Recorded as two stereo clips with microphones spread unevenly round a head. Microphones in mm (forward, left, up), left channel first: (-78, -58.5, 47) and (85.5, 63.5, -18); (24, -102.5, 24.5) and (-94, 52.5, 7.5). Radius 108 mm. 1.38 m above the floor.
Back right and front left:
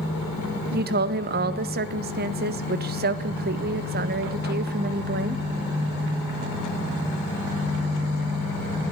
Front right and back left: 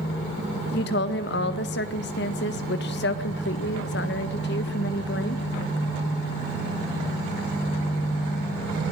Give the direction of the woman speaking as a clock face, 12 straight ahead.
12 o'clock.